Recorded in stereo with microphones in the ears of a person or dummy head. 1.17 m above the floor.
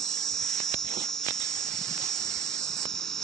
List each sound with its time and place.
0.0 s an insect: centre (ahead or behind)